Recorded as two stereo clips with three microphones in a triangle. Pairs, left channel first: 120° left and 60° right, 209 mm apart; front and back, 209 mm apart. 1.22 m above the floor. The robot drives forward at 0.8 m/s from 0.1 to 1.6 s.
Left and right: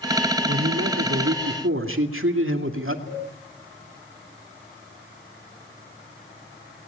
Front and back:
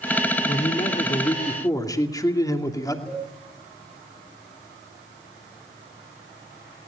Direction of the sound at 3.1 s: 85° left.